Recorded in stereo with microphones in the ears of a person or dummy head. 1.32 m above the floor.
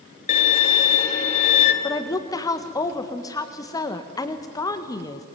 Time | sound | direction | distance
0.3 | a violin | 45° left (ahead or behind) | 2.5 m
1.8 | a woman speaking | 15° left (ahead or behind) | 1.6 m